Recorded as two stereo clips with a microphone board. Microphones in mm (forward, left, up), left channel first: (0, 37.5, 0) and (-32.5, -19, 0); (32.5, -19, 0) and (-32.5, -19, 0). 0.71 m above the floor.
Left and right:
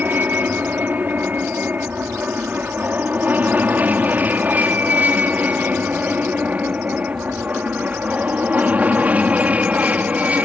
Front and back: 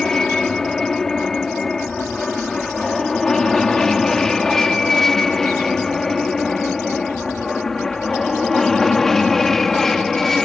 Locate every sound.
0.0 s an aircraft: 80° right